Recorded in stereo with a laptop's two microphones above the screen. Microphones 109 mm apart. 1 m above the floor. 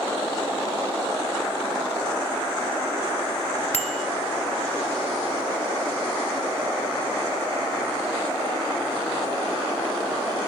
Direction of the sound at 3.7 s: 80° left.